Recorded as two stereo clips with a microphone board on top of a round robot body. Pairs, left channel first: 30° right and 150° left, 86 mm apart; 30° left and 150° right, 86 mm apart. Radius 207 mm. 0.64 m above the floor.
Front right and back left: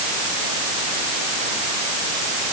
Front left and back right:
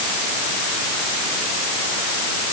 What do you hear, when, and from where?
Only background noise.